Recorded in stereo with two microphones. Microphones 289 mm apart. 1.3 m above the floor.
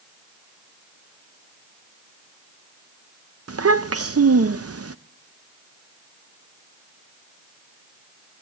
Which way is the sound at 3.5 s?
55° right (ahead or behind).